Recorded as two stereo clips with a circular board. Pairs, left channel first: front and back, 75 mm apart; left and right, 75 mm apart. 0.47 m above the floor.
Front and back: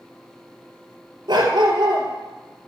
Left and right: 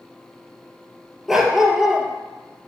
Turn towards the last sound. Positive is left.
turn(degrees=-175)